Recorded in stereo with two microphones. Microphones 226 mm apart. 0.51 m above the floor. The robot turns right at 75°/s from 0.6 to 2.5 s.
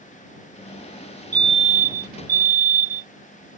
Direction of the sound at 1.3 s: 155° right.